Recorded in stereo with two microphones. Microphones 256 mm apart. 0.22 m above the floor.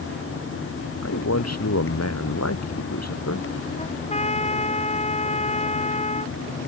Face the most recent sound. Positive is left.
turn(degrees=25)  # may be behind; listen again after turning